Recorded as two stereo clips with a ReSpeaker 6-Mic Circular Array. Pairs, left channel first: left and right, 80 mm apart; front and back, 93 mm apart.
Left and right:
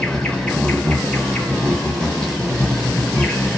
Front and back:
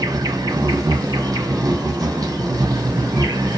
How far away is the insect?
About 1.2 m.